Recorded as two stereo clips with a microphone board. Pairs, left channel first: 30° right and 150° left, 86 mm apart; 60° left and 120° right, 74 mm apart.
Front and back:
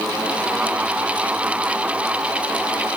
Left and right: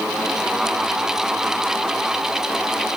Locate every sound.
Only background noise.